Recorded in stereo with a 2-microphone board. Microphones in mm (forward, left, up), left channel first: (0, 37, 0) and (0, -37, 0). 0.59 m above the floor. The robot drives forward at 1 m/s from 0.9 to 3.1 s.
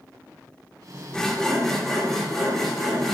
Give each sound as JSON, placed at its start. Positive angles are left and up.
{"t": 1.1, "sound": "sawing", "side_deg": 10, "distance_m": 0.9}